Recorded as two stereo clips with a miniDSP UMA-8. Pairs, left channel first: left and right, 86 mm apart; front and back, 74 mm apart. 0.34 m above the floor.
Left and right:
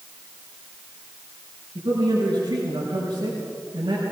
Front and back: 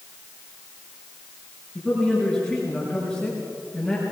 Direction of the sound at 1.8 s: 85° right.